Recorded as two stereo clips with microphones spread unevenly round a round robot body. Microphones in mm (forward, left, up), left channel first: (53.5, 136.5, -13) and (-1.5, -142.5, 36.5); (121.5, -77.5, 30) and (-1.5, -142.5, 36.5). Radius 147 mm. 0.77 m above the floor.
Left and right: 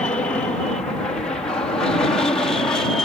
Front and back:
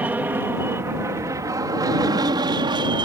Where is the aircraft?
140° left; by 3.0 s 155° left.